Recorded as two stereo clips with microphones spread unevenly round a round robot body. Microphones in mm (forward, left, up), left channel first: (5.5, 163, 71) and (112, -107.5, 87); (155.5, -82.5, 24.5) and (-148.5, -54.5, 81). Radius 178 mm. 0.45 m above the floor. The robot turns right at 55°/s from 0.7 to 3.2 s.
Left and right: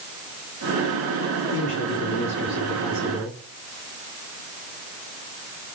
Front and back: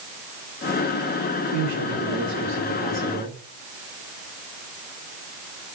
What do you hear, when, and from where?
1.5 s a man speaking: 150° left, 7 m; by 3.4 s 115° right, 7 m